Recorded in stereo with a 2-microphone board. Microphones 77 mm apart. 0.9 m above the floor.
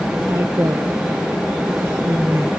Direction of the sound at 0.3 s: 40° right (ahead or behind).